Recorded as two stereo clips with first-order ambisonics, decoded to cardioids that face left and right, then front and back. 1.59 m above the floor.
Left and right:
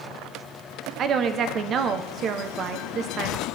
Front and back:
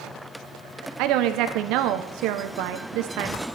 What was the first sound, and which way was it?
A woman speaking, 145° right.